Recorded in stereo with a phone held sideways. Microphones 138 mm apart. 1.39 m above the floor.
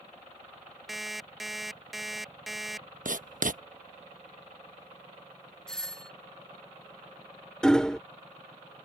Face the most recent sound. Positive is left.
turn(degrees=5)  # may be behind; listen again after turning